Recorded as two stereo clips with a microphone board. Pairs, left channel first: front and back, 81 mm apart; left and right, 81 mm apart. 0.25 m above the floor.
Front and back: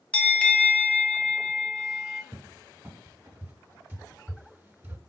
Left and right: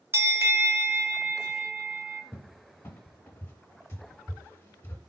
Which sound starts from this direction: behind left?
A cupboard door, at 2.3 s.